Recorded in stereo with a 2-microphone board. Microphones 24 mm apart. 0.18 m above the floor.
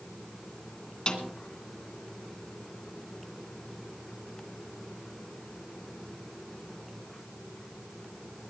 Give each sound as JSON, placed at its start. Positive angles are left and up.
{"t": 1.1, "sound": "a snare drum", "side_deg": 40, "distance_m": 2.5}